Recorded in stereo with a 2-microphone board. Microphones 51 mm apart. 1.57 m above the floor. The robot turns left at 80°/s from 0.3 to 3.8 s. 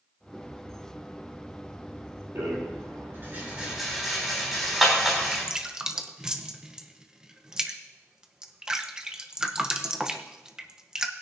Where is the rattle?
65° right (ahead or behind), 3.5 m; by 5.5 s centre (ahead or behind), 3.5 m.